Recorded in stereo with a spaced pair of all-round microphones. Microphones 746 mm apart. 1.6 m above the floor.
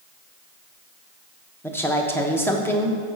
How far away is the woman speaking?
About 1.1 m.